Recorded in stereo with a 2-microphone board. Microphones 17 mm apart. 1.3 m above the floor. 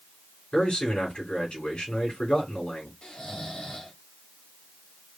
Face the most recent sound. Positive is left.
turn(degrees=75)  # may be behind; listen again after turning